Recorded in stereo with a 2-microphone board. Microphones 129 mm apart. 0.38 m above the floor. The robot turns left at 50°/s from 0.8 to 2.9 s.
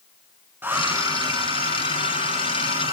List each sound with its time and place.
0.6 s a hair dryer: 15° right, 2.5 m; by 2.9 s 120° right, 2.5 m